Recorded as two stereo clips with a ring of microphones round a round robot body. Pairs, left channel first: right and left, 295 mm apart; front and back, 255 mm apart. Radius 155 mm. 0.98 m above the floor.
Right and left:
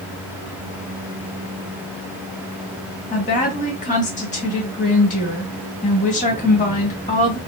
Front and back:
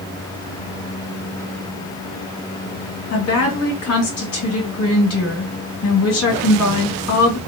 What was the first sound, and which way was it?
A woman speaking, 25° right.